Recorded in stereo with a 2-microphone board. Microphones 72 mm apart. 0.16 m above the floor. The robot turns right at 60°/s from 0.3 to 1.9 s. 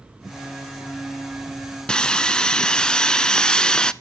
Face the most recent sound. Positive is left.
turn(degrees=10)  # may be behind; listen again after turning